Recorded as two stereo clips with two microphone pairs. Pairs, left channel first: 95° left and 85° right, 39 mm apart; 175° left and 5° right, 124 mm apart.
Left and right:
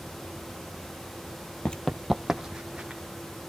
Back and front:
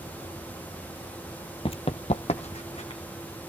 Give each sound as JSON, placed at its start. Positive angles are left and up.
{"t": 1.6, "sound": "running footsteps", "azimuth_deg": 145, "distance_m": 0.6}